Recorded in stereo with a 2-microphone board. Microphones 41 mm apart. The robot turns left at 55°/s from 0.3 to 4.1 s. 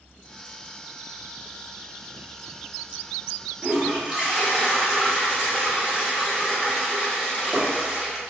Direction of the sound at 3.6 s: 45° right (ahead or behind).